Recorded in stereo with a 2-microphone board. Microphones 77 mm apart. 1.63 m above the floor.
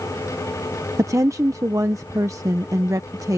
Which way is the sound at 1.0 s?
45° right (ahead or behind).